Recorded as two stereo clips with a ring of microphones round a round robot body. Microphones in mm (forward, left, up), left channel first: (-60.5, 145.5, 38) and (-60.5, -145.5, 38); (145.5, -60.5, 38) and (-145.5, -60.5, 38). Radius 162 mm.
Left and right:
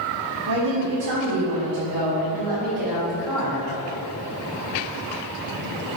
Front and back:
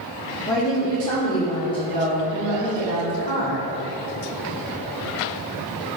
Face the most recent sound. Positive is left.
turn(degrees=-70)